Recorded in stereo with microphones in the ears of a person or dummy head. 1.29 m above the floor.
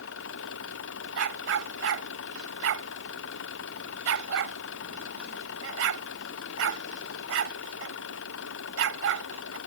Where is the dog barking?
80° right.